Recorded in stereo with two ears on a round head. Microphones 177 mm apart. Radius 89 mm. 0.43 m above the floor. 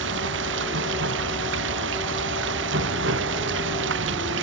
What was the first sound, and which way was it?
Running water, 65° right (ahead or behind).